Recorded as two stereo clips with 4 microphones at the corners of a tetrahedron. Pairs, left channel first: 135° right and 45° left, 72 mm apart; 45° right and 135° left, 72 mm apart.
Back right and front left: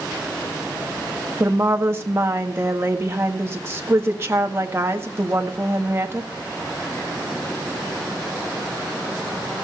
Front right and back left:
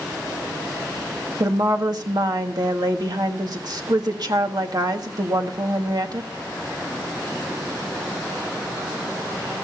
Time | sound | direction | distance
1.4 | a woman speaking | 100° left | 1.6 m